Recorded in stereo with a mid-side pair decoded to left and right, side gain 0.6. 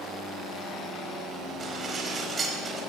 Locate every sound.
1.6 s dishes clattering: 35° right, 4 m